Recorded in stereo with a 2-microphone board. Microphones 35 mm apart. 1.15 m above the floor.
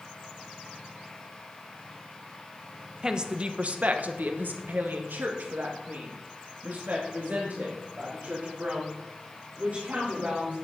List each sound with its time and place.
3.0 s a woman speaking: 20° right (ahead or behind), 1.0 m; by 10.5 s 50° right (ahead or behind), 4.5 m